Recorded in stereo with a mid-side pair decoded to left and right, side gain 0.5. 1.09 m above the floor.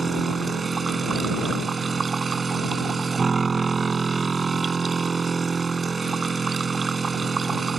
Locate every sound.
0.0 s a machine running: 30° right